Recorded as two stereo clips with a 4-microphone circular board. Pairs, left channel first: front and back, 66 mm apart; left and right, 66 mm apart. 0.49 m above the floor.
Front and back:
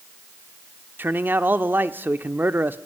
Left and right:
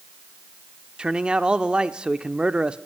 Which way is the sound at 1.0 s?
155° right.